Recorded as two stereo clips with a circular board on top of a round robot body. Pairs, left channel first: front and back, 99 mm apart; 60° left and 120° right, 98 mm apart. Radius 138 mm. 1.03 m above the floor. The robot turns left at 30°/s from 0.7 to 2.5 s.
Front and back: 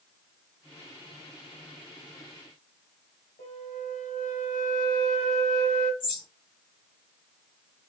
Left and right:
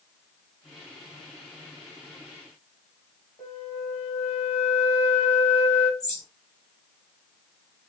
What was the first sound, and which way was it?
A flute, 15° left.